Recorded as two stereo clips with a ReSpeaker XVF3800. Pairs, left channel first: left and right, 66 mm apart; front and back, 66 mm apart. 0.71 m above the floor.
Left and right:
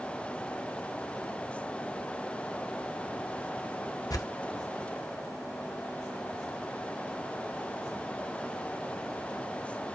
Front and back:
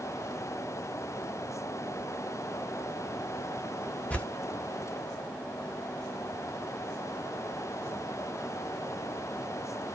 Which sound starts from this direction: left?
Tearing paper, at 4.1 s.